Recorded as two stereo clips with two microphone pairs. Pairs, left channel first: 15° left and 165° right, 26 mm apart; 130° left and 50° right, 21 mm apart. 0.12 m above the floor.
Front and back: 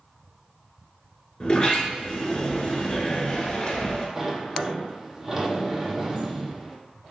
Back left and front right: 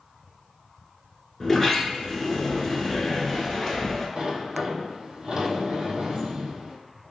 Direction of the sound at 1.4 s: 45° left.